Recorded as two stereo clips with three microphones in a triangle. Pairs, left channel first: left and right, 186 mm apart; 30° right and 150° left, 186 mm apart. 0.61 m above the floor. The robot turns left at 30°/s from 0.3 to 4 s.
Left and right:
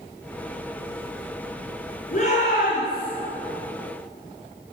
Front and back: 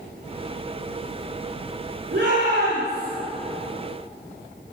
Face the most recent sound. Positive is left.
turn(degrees=75)